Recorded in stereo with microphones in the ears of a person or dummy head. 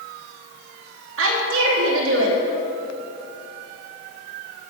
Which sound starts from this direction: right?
A woman speaking, at 1.2 s.